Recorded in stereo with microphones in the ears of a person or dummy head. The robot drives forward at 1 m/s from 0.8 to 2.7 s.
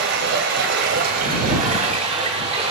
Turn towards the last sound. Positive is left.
turn(degrees=-30)  # may be behind; listen again after turning